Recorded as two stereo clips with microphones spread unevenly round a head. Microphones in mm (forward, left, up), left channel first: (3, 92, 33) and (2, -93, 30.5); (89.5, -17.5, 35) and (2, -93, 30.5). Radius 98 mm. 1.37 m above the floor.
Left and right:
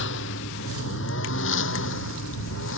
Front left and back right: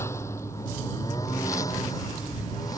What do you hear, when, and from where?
0.0 s a lawn mower: 115° left; by 2.8 s 110° left